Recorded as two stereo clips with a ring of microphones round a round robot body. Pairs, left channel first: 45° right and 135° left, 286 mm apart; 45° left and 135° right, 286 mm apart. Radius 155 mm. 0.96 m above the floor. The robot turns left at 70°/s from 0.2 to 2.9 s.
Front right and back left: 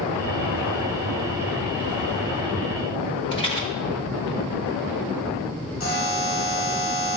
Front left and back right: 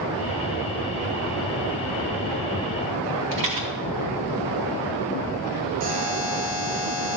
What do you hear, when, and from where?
3.3 s a rattle: 115° right, 1.2 m
5.8 s a buzzer: 90° right, 1.5 m